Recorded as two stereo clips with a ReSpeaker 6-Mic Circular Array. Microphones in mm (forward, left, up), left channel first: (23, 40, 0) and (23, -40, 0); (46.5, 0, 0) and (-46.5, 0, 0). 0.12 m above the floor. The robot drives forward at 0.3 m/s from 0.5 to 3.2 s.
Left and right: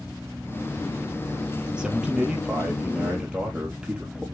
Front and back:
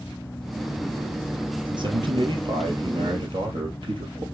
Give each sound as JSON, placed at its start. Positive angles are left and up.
{"t": 1.7, "sound": "a man speaking", "azimuth_deg": -165, "distance_m": 2.5}